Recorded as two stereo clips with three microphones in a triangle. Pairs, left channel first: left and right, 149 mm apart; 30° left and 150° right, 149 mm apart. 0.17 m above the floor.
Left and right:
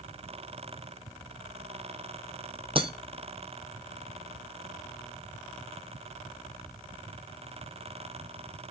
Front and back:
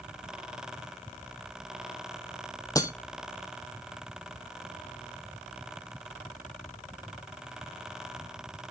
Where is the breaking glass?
40° right, 0.7 m.